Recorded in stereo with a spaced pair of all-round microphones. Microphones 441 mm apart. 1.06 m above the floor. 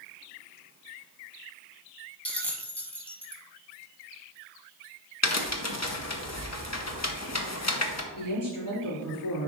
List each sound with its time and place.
2.2 s a bell: 5° left (ahead or behind), 1.0 m
5.2 s a crack: 35° left (ahead or behind), 0.8 m
8.1 s a woman speaking: 45° left (ahead or behind), 3 m